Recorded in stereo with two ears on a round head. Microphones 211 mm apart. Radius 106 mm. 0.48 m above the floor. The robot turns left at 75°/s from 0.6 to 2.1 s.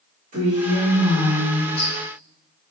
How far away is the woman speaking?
About 1.3 m.